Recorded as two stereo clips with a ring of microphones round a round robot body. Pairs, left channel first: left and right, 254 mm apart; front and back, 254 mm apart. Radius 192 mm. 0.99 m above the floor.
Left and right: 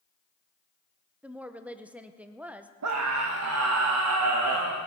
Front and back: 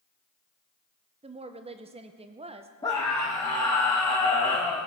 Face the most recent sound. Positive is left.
turn(degrees=-80)